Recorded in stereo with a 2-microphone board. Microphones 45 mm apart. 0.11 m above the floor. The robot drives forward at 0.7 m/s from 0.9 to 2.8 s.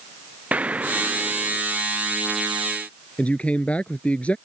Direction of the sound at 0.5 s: 30° right (ahead or behind).